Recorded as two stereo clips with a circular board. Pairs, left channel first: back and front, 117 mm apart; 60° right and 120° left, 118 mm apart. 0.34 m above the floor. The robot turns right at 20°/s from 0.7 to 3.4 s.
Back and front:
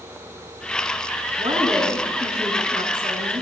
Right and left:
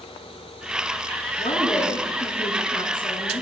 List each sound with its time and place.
1.4 s a woman speaking: 55° right, 3.5 m; by 3.4 s 15° right, 3.5 m